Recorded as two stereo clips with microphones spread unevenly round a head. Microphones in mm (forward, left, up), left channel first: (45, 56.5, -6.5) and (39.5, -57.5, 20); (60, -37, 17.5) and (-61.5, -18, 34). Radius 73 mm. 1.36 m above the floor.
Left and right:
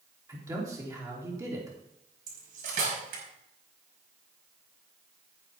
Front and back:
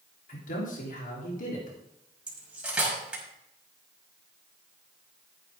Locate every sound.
0.3 s a man speaking: 30° right, 4 m
2.3 s cutlery clinking: 110° right, 5 m